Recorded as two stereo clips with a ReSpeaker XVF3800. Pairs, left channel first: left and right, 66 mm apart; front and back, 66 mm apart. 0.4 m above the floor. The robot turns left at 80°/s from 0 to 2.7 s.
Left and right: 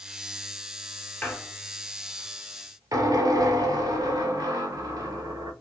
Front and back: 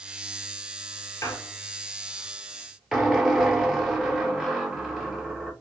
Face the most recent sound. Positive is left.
turn(degrees=-95)